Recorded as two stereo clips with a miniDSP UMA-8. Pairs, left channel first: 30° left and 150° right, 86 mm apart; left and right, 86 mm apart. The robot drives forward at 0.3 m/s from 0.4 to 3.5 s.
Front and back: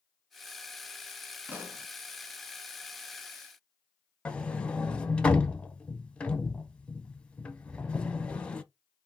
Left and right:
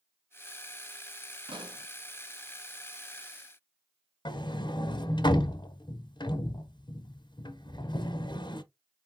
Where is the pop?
85° right, 0.9 m; by 1.9 s 90° right, 0.9 m.